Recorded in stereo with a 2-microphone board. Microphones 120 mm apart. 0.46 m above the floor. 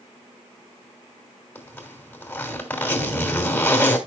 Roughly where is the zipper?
Centre.